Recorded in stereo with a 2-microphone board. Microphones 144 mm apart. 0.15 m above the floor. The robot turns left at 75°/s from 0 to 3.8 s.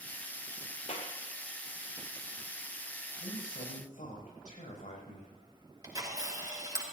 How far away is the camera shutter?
About 3.5 m.